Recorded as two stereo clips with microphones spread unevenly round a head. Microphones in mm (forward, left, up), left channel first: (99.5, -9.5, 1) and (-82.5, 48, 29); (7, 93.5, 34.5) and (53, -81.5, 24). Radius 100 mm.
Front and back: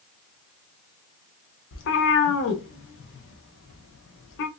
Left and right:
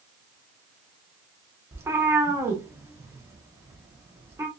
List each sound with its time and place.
1.7 s a cat meowing: straight ahead, 0.5 m